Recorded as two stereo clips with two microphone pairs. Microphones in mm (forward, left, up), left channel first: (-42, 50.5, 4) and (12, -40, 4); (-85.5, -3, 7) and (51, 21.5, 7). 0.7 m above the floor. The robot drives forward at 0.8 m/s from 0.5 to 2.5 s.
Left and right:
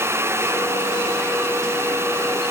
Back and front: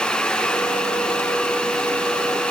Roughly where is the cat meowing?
I don't hear a cat meowing.